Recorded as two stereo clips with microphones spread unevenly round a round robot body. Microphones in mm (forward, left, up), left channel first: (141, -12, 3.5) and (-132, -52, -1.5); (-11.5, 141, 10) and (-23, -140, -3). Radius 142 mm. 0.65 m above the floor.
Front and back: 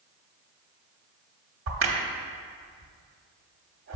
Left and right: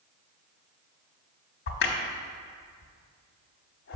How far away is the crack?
About 1.0 m.